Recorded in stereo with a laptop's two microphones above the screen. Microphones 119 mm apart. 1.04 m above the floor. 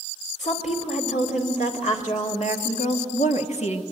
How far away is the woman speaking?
About 3 m.